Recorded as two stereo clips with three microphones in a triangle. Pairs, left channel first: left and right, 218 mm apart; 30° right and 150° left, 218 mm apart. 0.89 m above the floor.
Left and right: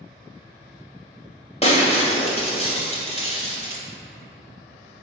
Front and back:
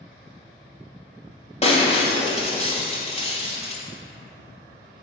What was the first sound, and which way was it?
Breaking glass, 30° left.